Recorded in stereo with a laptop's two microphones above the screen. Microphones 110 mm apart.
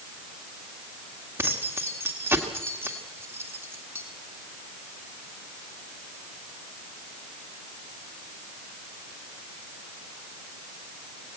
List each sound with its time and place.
1.4 s keys jangling: 20° right (ahead or behind), 1.8 m